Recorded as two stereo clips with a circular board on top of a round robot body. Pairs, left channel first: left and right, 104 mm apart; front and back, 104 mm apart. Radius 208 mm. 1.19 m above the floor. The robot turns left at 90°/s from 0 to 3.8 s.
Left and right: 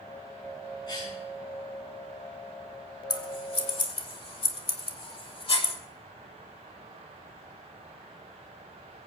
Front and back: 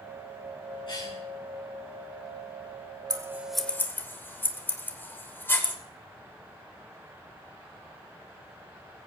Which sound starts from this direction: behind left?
Scissors, at 3.1 s.